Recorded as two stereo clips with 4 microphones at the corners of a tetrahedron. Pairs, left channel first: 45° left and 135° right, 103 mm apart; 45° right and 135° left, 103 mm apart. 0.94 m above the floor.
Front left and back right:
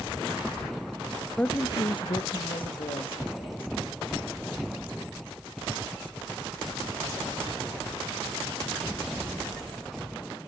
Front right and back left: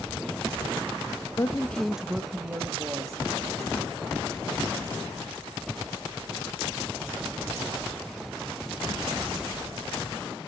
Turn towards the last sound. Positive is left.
turn(degrees=80)